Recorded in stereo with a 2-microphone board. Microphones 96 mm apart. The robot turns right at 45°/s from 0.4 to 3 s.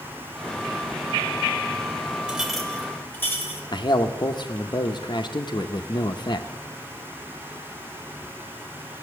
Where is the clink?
10° right, 2 m; by 3.6 s 20° left, 2 m.